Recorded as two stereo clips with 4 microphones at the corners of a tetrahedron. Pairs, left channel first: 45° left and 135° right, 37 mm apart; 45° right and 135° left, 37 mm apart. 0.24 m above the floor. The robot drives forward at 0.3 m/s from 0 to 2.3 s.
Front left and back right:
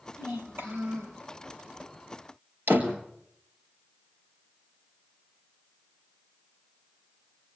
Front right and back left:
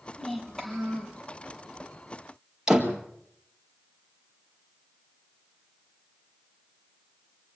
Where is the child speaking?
130° right, 4.5 m.